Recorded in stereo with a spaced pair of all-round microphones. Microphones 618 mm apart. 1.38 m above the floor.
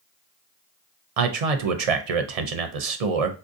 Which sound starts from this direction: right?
A man speaking, at 1.2 s.